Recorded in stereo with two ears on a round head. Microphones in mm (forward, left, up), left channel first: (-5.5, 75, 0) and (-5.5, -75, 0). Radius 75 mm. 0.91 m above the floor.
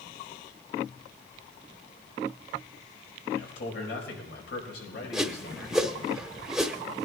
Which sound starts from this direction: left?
A man speaking, at 3.3 s.